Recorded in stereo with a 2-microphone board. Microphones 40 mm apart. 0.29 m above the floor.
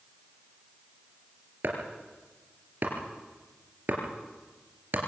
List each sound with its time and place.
1.6 s chopping: 50° right (ahead or behind), 3.5 m